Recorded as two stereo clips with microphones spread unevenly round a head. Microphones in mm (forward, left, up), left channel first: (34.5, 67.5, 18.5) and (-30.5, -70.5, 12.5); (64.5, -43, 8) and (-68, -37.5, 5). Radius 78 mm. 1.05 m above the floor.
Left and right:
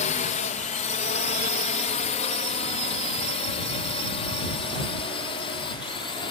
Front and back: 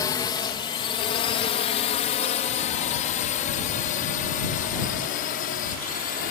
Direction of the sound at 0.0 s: 55° left.